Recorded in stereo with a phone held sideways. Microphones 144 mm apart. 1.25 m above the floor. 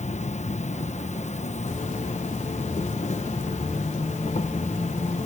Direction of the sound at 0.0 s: 55° left (ahead or behind).